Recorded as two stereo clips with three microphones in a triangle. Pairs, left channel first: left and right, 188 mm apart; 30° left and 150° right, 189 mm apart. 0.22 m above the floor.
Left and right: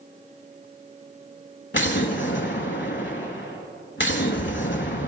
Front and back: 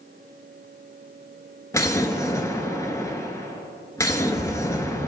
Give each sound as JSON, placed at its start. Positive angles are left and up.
{"t": 1.7, "sound": "an explosion", "azimuth_deg": 100, "distance_m": 0.7}